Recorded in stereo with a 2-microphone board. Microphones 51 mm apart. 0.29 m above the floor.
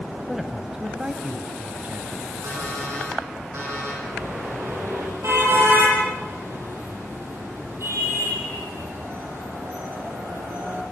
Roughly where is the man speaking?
Centre.